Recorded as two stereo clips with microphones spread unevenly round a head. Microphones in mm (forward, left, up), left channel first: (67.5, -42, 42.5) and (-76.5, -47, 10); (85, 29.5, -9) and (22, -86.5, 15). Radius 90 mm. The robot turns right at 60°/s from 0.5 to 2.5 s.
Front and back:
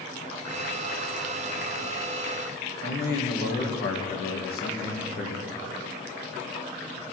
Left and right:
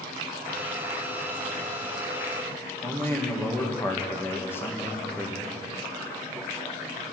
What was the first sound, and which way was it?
A man speaking, 10° right.